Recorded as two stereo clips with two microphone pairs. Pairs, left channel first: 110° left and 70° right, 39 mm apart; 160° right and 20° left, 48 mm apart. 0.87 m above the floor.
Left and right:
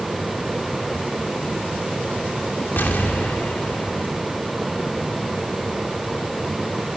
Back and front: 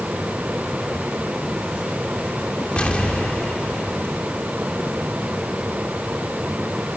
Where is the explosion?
140° left, 1.6 m.